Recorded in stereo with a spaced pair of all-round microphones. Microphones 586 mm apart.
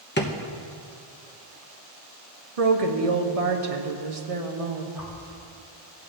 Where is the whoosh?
5° right (ahead or behind), 3 m.